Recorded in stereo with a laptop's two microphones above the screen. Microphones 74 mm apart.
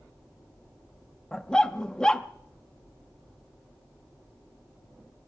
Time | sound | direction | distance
1.3 | a dog barking | 10° left (ahead or behind) | 0.5 m